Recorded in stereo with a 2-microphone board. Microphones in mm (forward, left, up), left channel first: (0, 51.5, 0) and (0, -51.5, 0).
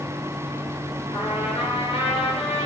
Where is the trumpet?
75° left (ahead or behind), 5.5 m.